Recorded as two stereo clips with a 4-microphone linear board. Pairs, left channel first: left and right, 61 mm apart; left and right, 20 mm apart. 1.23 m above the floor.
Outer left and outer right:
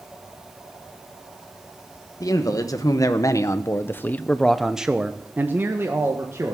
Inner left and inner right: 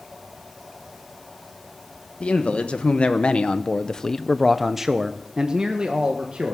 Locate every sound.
2.2 s a man speaking: 70° left (ahead or behind), 1.6 m; by 6.5 s 50° right (ahead or behind), 1.7 m